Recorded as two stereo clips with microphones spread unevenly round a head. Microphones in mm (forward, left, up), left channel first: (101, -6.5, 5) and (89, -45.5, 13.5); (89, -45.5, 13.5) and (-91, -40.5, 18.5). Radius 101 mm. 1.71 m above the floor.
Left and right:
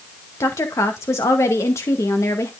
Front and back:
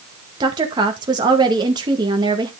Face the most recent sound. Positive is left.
turn(degrees=110)